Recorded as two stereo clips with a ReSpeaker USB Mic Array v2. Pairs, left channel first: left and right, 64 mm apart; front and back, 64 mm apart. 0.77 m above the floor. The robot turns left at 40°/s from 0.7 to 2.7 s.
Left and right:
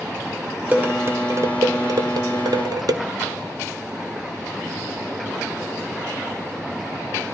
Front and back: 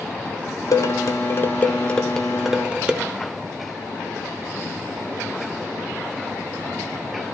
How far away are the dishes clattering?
About 0.9 m.